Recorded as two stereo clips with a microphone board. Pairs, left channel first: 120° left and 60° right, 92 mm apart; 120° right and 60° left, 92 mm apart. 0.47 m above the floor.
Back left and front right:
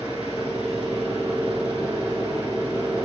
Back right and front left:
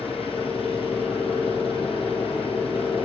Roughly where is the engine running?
Behind right.